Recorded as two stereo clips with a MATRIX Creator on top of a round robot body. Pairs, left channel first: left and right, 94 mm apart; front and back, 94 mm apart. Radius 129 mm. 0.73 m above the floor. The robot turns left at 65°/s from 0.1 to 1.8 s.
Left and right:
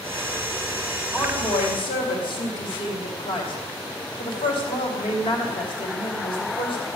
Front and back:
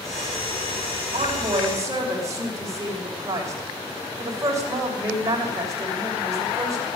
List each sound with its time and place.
1.1 s a woman speaking: 170° left, 3 m; by 7.0 s 125° left, 3 m